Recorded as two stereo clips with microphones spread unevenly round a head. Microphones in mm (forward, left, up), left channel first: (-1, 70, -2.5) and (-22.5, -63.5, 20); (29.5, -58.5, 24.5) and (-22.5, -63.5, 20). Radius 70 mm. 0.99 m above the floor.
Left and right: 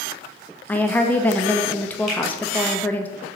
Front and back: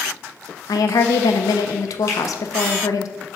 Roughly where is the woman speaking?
Ahead.